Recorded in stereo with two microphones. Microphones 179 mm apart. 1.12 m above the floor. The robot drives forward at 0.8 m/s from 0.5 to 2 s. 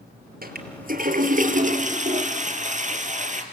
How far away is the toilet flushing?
About 3.5 m.